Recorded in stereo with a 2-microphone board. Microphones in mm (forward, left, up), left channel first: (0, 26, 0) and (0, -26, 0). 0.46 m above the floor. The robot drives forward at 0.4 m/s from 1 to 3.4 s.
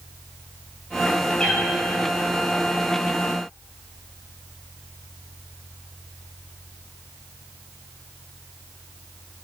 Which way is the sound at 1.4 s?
15° left (ahead or behind).